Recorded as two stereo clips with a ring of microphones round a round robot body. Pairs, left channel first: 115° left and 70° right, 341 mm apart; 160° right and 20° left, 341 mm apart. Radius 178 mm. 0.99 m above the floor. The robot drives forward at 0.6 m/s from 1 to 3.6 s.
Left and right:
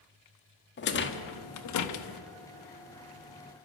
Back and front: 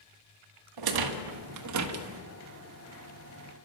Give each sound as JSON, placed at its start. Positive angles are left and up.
{"t": 0.8, "sound": "a rattle", "azimuth_deg": 50, "distance_m": 1.5}